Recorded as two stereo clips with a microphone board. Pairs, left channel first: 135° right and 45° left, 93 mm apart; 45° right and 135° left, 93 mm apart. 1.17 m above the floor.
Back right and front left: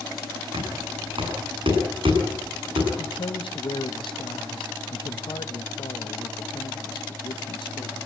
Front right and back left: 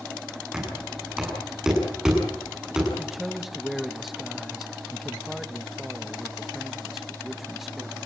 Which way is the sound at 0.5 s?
55° left.